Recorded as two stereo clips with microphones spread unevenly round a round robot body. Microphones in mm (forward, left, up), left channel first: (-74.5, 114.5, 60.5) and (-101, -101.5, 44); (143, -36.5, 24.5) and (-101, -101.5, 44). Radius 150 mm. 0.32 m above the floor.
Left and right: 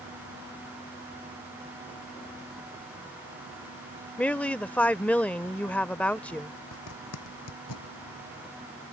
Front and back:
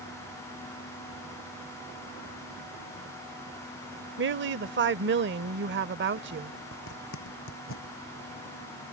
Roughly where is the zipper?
Ahead left.